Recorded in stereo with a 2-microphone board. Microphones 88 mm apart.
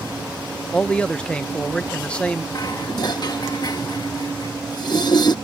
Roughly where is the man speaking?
Centre.